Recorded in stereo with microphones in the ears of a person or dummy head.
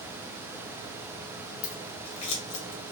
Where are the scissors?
35° left (ahead or behind), 1.0 m.